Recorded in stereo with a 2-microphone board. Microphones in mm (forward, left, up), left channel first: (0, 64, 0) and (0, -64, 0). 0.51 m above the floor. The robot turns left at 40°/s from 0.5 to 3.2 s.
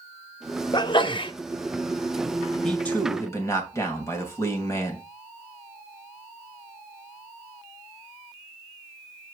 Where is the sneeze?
35° left (ahead or behind), 0.8 m; by 1.3 s 40° left (ahead or behind), 0.8 m.